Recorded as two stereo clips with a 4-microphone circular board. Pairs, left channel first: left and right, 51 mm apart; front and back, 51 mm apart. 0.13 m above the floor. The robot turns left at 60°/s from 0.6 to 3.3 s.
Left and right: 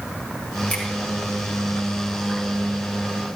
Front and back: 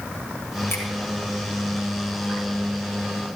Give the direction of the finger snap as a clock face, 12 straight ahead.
11 o'clock.